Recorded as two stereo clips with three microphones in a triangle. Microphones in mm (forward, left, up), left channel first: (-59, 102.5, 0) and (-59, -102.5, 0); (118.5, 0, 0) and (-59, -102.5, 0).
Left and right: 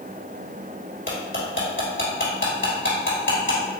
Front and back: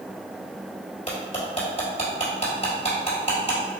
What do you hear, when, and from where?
1.1 s cutlery clinking: 85° left, 1.9 m